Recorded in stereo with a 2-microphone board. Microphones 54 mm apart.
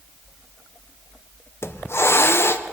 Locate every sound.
1.6 s a hiss: 50° left (ahead or behind), 0.6 m